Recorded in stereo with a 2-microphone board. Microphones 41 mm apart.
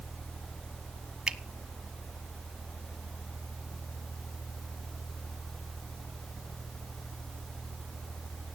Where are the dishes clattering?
No dishes clattering in this recording.